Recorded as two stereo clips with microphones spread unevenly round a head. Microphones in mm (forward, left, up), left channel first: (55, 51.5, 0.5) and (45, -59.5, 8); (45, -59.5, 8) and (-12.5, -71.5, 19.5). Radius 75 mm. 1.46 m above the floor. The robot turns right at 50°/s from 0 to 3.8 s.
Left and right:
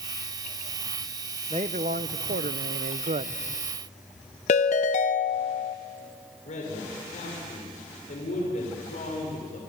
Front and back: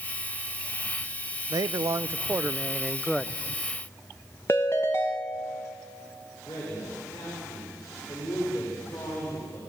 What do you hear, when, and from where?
1.5 s a man speaking: 155° right, 0.7 m; by 3.4 s 60° right, 0.7 m
4.5 s a ringtone: 90° left, 0.8 m
6.5 s a man speaking: 75° left, 6.5 m